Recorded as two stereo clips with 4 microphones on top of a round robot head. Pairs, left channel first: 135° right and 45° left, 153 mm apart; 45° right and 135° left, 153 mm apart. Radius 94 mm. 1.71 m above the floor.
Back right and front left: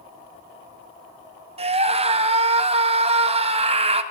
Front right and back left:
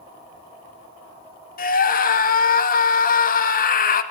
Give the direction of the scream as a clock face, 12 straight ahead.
12 o'clock.